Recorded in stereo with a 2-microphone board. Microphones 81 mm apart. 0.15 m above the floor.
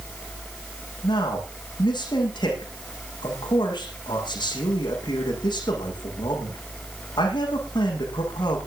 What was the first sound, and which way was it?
A man speaking, 65° left (ahead or behind).